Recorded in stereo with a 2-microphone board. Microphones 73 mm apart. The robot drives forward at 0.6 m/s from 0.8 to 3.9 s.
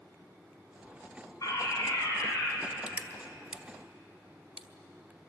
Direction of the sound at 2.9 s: 20° right (ahead or behind).